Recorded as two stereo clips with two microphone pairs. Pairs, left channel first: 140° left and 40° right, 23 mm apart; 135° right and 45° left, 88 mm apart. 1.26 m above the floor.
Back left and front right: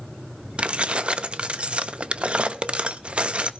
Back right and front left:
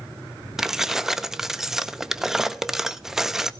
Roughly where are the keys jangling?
Ahead right.